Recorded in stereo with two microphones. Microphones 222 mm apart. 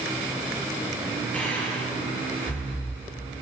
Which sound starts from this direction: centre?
Breathing, at 1.3 s.